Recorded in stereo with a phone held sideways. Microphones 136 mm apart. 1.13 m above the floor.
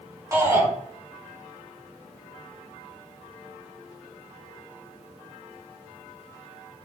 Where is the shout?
25° right (ahead or behind), 7.5 m.